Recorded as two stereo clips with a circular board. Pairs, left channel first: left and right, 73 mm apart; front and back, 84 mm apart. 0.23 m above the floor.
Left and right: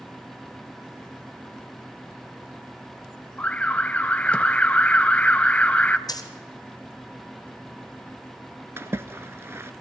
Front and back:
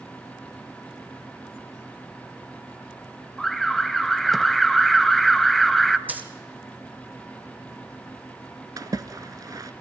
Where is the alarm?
85° left, 0.6 m.